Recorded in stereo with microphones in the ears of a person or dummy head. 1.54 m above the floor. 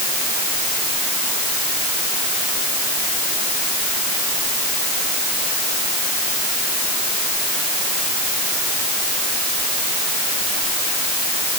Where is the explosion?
I don't hear an explosion.